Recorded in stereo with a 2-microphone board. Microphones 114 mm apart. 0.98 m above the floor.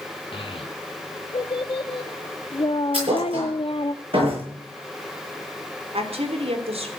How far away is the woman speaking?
About 3 m.